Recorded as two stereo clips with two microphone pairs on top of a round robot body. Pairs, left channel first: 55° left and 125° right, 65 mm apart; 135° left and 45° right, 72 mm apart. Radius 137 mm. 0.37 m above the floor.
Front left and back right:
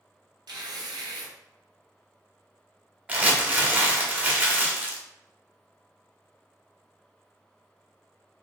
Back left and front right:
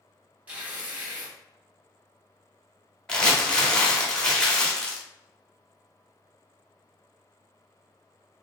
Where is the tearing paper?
120° right, 1.0 m.